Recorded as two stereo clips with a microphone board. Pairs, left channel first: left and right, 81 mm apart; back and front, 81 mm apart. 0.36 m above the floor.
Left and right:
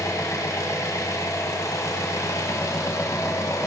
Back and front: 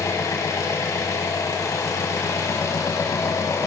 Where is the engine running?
135° left, 1.1 m.